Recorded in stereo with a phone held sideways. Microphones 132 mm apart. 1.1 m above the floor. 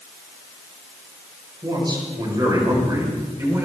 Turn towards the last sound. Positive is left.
turn(degrees=-20)  # may be behind; listen again after turning